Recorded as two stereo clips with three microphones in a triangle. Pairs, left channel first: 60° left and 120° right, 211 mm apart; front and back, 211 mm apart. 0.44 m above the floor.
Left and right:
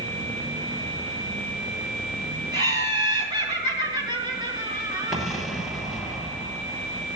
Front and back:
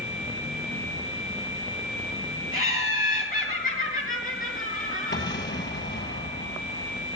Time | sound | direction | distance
2.5 | laughter | 50° right | 6.5 m
5.1 | an explosion | 30° right | 8 m